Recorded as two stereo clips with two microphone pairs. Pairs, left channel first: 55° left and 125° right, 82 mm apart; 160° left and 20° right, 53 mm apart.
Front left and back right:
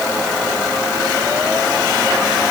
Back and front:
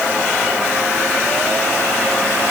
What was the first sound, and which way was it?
Only background noise.